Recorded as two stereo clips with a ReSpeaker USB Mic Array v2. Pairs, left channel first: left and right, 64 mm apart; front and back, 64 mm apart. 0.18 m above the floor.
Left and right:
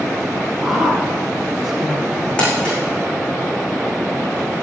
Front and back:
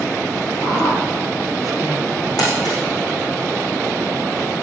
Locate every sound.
0.6 s a woman speaking: 10° right, 4.5 m
2.4 s crumpling: 15° left, 5.5 m